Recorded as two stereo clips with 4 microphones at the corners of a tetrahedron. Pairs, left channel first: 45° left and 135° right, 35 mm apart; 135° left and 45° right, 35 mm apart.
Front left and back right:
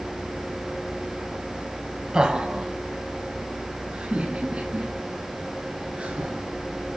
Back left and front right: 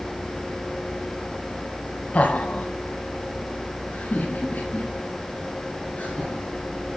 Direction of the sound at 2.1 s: 165° left.